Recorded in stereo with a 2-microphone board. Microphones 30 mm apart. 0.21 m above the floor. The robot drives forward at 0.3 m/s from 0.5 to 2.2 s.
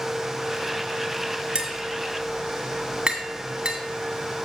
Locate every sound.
1.6 s tapping: 30° right (ahead or behind), 1.9 m